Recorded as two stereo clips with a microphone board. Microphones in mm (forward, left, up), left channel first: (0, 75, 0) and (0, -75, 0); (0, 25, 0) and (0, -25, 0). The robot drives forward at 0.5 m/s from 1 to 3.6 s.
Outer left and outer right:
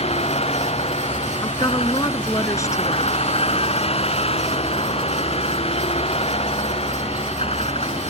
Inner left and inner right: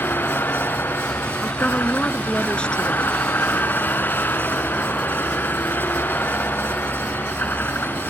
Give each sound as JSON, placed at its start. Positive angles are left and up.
{"t": 0.0, "sound": "a vehicle", "side_deg": 45}
{"t": 1.4, "sound": "a woman speaking", "side_deg": 25}